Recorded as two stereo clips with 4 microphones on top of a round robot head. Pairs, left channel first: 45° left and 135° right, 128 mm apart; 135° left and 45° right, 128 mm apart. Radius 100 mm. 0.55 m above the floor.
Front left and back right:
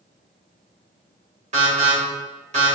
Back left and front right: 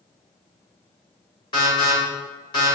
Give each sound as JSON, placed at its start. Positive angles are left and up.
{"t": 1.5, "sound": "an alarm", "azimuth_deg": -170, "distance_m": 2.0}